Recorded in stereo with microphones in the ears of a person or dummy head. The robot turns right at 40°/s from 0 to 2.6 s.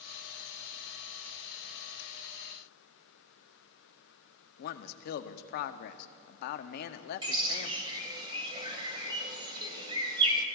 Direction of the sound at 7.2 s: 20° right (ahead or behind).